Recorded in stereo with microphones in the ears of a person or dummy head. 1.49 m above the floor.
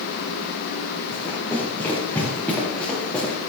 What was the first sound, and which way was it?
Running footsteps, 15° left (ahead or behind).